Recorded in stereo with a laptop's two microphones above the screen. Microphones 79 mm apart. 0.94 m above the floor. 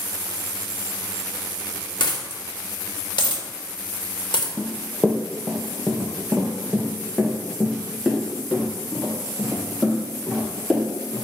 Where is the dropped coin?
70° left (ahead or behind), 1.2 m.